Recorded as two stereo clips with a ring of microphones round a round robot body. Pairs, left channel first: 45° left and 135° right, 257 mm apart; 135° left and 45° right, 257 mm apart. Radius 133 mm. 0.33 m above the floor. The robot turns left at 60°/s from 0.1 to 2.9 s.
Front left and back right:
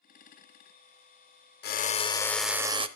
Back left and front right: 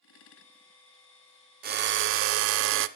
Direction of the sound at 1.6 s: 5° left.